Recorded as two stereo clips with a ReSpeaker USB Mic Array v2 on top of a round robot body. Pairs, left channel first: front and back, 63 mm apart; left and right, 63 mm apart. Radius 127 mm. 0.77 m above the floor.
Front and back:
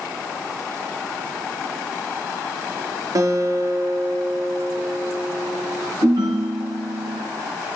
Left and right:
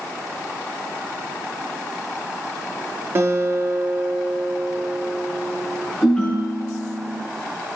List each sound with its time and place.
3.1 s a guitar: 145° right, 1.1 m
6.0 s a ringtone: 165° left, 2.5 m